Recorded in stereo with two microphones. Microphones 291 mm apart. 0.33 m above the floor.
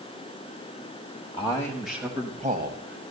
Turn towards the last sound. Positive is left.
turn(degrees=-45)  # may be behind; listen again after turning